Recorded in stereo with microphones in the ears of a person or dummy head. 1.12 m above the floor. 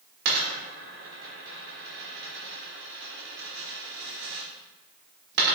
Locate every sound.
0.2 s a dropped coin: 60° right (ahead or behind), 1.2 m